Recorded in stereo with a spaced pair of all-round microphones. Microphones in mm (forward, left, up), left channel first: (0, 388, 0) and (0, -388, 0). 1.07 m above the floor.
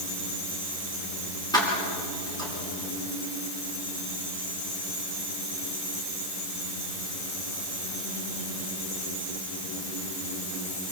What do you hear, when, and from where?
1.5 s keys jangling: 5° left (ahead or behind), 7 m